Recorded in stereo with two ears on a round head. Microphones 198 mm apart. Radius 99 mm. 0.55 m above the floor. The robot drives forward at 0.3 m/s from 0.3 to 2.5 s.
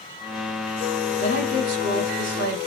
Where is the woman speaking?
35° right (ahead or behind), 2.5 m; by 2.7 s 40° right (ahead or behind), 2 m.